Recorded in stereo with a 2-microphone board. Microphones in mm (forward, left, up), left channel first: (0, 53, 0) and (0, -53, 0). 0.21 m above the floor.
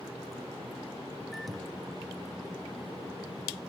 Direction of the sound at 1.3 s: Centre (ahead or behind).